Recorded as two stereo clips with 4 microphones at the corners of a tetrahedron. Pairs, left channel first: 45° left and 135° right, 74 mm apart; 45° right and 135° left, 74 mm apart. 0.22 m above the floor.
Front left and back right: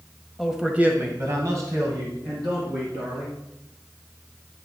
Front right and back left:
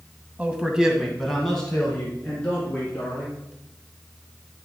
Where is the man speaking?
130° left, 1.0 m; by 3.4 s 115° right, 3 m.